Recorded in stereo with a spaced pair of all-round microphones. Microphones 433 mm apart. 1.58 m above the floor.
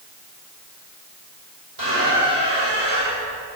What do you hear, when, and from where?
1.8 s a squeak: 65° right (ahead or behind), 4.5 m